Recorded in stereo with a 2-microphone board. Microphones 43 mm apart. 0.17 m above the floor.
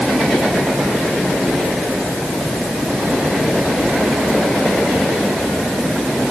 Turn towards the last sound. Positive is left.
No sound to turn to.